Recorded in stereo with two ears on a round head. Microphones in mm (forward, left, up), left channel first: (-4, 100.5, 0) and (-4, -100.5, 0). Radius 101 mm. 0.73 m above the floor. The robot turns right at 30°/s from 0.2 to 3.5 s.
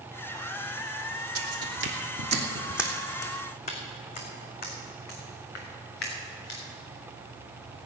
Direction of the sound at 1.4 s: 70° right (ahead or behind).